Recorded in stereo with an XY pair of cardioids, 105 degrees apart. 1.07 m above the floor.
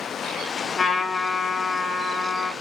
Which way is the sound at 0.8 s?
40° left.